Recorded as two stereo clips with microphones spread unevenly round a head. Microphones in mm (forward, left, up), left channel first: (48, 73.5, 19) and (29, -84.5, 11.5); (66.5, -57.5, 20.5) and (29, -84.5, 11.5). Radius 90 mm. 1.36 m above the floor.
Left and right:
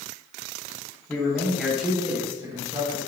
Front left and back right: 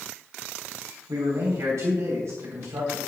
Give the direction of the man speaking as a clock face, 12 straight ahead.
7 o'clock.